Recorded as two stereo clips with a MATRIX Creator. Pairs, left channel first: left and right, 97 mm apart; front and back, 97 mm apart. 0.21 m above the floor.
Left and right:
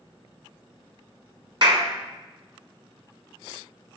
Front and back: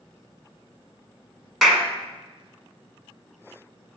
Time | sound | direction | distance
1.6 | a clap | 90° right | 1.2 m